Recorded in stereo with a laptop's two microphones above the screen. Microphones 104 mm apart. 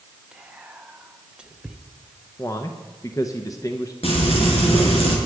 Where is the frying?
65° left (ahead or behind), 5 m.